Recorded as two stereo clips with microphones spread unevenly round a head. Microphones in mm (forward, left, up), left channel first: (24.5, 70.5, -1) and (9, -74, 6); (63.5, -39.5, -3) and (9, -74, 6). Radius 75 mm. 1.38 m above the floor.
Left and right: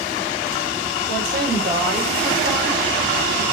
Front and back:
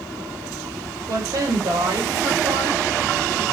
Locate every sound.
1.1 s a woman speaking: 130° right, 5.5 m